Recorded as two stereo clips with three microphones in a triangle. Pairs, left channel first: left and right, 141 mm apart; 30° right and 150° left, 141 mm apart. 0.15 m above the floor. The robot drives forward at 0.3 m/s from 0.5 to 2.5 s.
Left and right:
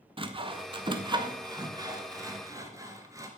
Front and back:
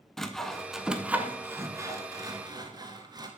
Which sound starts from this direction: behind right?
Sawing, at 0.2 s.